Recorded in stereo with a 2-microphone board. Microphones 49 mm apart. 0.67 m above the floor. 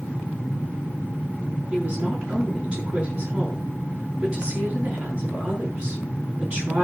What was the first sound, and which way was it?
A woman speaking, 20° right (ahead or behind).